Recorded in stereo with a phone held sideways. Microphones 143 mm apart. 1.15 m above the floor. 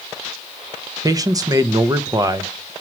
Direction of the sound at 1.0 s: 25° right (ahead or behind).